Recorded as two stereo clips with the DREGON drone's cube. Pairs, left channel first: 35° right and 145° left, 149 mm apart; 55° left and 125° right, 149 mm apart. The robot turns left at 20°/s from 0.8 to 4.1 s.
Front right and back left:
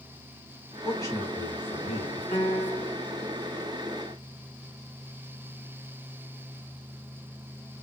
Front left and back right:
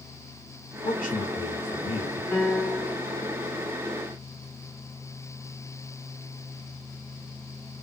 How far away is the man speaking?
About 2 m.